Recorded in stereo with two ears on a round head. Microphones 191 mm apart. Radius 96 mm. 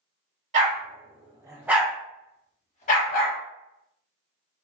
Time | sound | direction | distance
0.5 | a dog barking | 40° right (ahead or behind) | 1.1 m